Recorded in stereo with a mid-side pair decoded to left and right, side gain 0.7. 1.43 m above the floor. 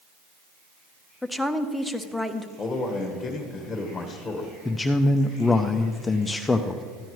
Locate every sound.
1.2 s a woman speaking: 5° left, 0.8 m
2.6 s a man speaking: 15° left, 1.4 m
4.7 s a man speaking: 15° left, 0.5 m